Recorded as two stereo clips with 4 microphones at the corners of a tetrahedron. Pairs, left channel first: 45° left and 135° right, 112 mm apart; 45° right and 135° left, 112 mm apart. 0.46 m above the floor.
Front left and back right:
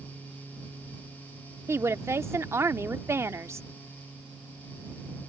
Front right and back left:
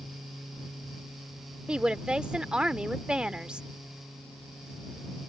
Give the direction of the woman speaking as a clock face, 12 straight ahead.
5 o'clock.